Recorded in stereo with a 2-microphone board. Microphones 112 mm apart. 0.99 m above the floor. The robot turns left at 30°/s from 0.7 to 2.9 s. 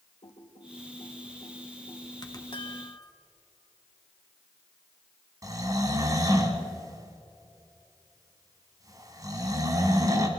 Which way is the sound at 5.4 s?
35° right (ahead or behind).